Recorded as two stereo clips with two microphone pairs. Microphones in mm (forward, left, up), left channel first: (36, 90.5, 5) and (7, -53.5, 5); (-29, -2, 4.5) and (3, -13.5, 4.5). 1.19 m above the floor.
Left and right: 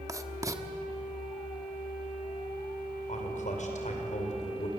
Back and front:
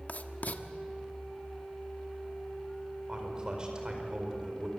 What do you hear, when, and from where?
0.1 s writing: 170° right, 1.3 m
3.1 s a man speaking: 45° left, 5 m